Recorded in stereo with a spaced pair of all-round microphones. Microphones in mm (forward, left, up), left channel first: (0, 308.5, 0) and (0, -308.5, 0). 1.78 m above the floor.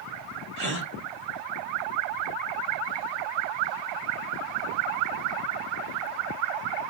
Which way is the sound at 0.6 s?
35° left (ahead or behind).